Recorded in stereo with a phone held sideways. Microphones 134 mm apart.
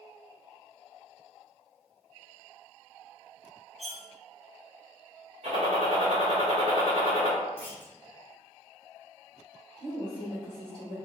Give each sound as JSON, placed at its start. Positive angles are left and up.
{"t": 3.8, "sound": "cutlery clinking", "side_deg": -55, "distance_m": 0.5}
{"t": 5.4, "sound": "a gunshot", "side_deg": -55, "distance_m": 1.5}
{"t": 7.6, "sound": "a clunk", "side_deg": 15, "distance_m": 0.8}
{"t": 9.8, "sound": "a woman speaking", "side_deg": 10, "distance_m": 1.9}